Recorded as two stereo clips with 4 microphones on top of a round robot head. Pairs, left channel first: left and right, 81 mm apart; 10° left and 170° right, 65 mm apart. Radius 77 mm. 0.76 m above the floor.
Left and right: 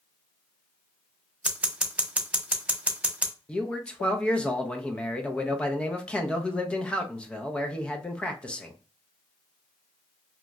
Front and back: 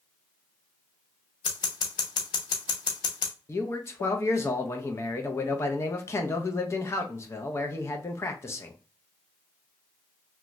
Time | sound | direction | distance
1.4 | scissors | 15° right | 0.5 m
3.5 | a man speaking | 20° left | 0.7 m